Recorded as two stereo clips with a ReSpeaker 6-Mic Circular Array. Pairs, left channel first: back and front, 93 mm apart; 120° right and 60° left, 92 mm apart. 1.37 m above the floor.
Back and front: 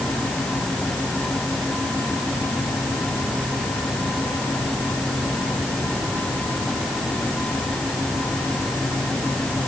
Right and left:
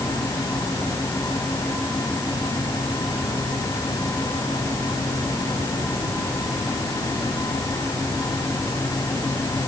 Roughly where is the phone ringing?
No phone ringing in this recording.